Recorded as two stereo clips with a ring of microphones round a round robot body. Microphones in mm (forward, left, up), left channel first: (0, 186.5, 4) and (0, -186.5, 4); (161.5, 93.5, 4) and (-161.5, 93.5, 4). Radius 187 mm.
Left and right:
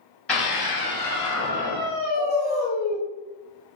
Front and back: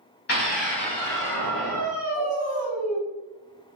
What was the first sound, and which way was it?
A scream, 5° left.